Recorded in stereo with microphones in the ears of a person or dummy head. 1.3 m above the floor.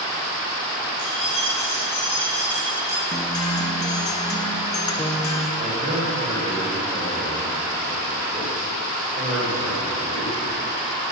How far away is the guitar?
About 0.9 m.